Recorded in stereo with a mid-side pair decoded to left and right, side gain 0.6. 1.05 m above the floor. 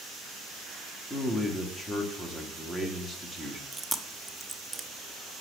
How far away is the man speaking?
About 2 m.